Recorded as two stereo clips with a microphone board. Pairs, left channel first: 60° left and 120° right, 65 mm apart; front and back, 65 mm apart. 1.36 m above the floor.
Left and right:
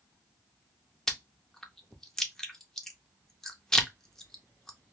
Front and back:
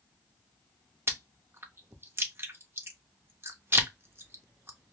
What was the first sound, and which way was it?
Chewing, 140° left.